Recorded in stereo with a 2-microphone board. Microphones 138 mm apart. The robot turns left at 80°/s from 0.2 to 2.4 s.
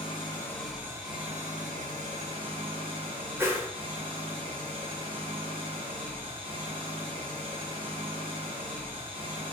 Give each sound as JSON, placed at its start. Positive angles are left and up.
{"t": 0.0, "sound": "an engine running", "azimuth_deg": 40, "distance_m": 1.0}
{"t": 3.4, "sound": "a whoosh", "side_deg": -15, "distance_m": 0.5}